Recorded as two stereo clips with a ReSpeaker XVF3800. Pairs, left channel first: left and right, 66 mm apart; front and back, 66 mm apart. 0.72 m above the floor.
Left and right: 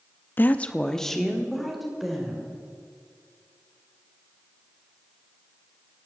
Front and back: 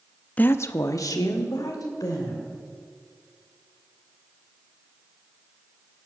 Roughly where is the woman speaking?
Ahead left.